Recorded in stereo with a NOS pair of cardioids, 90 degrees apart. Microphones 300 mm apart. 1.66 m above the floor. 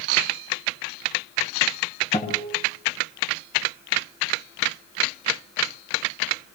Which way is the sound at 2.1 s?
20° left.